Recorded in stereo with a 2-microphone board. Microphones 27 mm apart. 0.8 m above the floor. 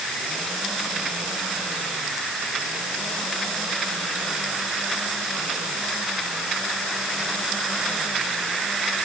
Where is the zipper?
No zipper in this recording.